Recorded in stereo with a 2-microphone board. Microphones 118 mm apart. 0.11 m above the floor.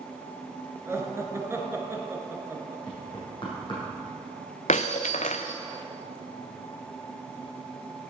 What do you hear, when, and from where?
0.9 s laughter: 25° right (ahead or behind), 1.3 m
2.9 s knocking: 40° left (ahead or behind), 4 m
4.7 s breaking glass: 75° left (ahead or behind), 0.6 m